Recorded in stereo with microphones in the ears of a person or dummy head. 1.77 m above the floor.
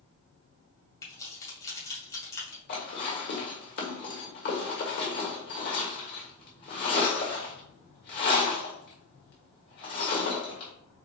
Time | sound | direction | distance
1.0 | keys jangling | 20° left (ahead or behind) | 2.5 m
2.7 | dishes clattering | 45° left (ahead or behind) | 1.5 m